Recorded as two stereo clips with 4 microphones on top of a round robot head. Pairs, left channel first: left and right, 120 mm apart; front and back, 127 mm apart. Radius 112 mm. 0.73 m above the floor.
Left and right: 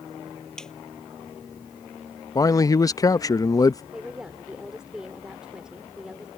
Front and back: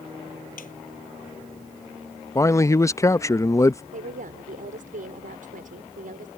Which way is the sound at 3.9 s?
175° right.